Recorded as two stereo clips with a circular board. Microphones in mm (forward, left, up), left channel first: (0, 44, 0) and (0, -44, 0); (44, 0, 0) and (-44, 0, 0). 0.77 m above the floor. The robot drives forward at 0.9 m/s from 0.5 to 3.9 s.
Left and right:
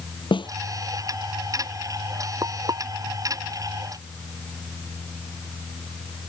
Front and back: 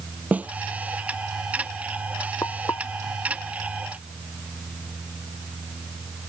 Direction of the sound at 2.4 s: 55° right.